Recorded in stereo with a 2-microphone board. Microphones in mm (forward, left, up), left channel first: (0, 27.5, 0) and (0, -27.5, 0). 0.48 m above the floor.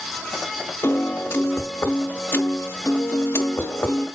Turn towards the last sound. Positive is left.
turn(degrees=45)  # may be behind; listen again after turning